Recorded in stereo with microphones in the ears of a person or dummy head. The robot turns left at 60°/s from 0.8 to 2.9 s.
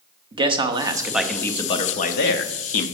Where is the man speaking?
155° right, 0.7 m; by 2.9 s 80° left, 0.7 m.